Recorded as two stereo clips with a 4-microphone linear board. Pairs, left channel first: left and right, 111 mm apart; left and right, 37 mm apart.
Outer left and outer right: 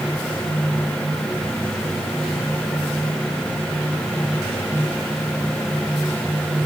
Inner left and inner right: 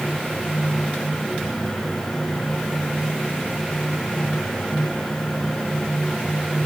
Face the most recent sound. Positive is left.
No sound to turn to.